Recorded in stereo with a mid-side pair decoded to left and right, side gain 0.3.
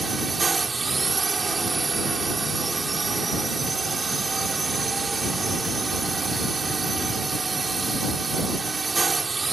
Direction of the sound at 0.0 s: 45° right.